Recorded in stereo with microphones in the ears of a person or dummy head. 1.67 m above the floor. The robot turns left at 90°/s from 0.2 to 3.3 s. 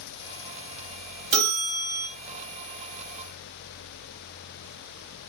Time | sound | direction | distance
1.3 | a bell | 65° right | 1.3 m